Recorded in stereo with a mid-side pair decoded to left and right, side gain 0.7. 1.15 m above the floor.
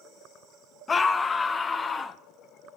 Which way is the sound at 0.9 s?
25° left.